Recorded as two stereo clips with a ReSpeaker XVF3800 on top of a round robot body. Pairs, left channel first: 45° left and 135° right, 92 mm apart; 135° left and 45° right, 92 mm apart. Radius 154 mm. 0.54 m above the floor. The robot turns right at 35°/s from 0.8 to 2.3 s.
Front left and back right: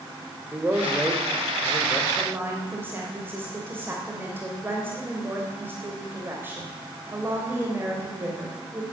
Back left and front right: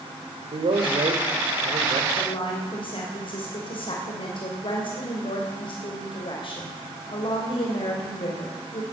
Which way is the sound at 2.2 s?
155° left.